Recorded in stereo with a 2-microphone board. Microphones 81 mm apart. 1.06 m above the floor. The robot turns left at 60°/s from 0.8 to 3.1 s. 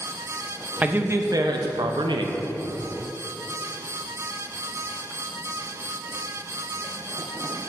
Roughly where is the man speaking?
Ahead.